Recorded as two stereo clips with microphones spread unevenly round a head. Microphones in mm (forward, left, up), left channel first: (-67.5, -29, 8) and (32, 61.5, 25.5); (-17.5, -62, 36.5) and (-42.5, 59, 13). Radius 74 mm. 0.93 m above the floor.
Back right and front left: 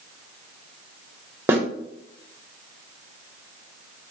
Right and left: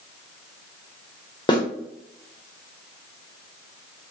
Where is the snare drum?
30° right, 1.0 m.